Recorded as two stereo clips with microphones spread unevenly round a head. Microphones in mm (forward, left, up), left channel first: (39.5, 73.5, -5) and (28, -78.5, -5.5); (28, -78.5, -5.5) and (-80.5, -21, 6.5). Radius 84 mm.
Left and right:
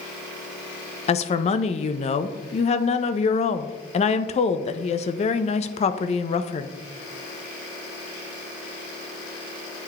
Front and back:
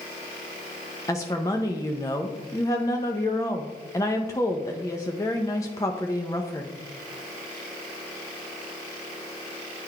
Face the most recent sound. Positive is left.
turn(degrees=40)